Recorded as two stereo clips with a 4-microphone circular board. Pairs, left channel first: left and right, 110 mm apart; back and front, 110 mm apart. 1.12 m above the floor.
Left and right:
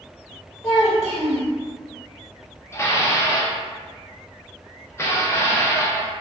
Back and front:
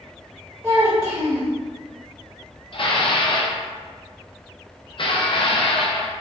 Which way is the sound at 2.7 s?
155° left.